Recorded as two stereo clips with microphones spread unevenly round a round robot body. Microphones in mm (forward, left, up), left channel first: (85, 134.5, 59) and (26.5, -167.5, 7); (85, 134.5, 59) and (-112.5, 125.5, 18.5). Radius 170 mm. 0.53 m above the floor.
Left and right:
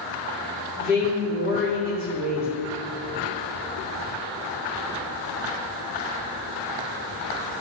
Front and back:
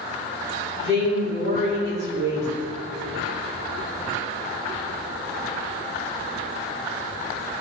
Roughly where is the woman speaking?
Behind.